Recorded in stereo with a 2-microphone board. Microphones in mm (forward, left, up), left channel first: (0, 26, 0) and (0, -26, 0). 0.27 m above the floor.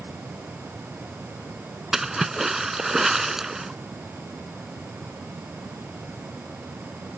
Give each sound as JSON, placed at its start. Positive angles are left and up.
{"t": 1.9, "sound": "a splash", "side_deg": -5}